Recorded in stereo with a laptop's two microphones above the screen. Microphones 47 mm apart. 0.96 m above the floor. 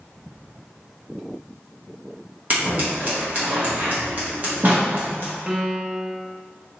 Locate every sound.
2.5 s scissors: 35° right (ahead or behind), 0.9 m
5.5 s a piano: 20° right (ahead or behind), 0.5 m